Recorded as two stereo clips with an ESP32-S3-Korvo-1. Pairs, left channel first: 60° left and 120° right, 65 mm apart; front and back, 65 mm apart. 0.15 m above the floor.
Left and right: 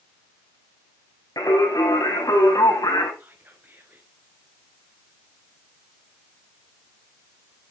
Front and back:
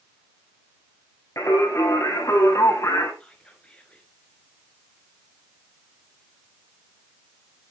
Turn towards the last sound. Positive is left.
turn(degrees=-70)